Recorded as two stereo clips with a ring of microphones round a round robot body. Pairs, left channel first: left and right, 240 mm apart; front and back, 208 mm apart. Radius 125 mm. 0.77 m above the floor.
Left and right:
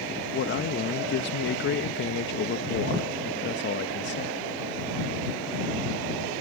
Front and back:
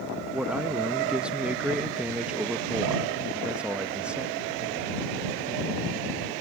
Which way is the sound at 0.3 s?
95° left.